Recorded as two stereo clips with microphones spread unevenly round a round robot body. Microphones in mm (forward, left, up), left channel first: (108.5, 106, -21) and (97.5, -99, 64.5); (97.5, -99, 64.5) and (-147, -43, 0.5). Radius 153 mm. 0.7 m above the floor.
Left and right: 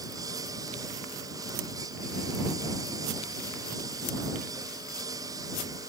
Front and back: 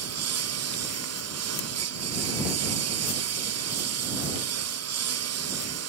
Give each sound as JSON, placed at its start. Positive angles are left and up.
{"t": 0.0, "sound": "a lawn mower", "azimuth_deg": -170}